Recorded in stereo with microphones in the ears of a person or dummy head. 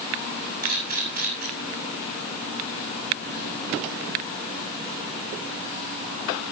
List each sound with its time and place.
0.6 s a camera shutter: 50° right (ahead or behind), 7.5 m